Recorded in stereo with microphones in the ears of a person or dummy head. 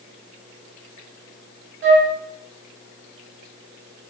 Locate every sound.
1.8 s a flute: 70° right (ahead or behind), 2.0 m